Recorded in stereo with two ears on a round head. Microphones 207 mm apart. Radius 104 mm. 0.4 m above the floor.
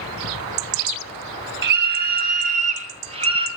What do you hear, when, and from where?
1.6 s a scream: 55° right (ahead or behind), 2.5 m; by 3.5 s 25° right (ahead or behind), 3.5 m